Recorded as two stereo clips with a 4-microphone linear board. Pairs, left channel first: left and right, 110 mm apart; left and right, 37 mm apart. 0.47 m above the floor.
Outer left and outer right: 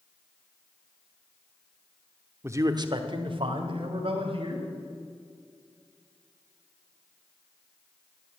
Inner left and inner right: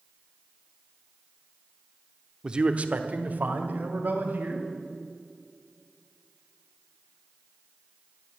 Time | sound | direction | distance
2.4 | a man speaking | 20° right (ahead or behind) | 0.8 m